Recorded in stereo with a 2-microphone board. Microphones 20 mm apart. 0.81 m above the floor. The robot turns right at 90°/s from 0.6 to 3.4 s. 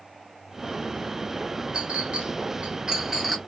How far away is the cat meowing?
No cat meowing in this recording.